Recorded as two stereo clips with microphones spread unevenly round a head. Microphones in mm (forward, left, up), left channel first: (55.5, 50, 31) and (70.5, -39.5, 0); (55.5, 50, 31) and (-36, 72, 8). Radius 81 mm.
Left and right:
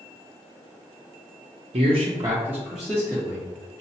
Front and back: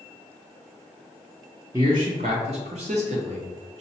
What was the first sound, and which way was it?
A man speaking, 115° right.